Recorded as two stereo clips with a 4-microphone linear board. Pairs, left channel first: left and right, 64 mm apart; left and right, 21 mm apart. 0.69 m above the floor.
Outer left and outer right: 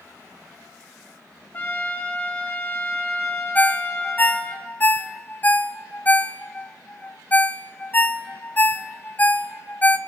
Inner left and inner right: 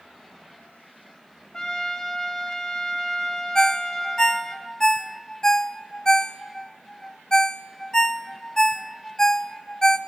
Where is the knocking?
No knocking in this recording.